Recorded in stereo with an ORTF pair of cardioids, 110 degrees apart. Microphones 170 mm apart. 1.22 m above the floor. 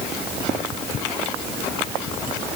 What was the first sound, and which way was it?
Only background noise.